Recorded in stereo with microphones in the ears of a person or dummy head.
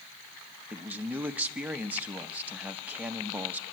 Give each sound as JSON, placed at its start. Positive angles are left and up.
{"t": 0.7, "sound": "a man speaking", "side_deg": -10, "distance_m": 0.9}